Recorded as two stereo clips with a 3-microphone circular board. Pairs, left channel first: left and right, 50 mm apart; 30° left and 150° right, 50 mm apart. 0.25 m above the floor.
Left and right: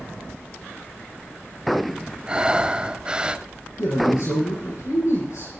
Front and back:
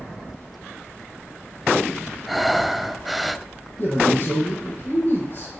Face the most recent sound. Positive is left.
turn(degrees=75)